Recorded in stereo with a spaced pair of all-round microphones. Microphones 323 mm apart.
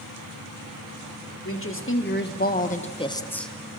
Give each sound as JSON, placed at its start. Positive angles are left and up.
{"t": 1.4, "sound": "a woman speaking", "side_deg": 40, "distance_m": 1.8}